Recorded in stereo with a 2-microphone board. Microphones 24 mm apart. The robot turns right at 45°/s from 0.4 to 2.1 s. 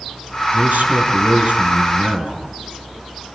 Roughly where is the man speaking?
Right.